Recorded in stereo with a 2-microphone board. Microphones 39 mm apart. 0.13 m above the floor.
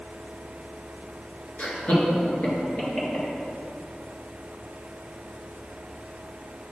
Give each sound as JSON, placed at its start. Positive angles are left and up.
{"t": 1.6, "sound": "laughter", "side_deg": 45, "distance_m": 1.7}